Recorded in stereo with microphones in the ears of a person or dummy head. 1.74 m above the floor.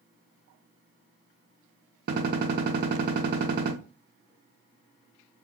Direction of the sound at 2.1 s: 55° right (ahead or behind).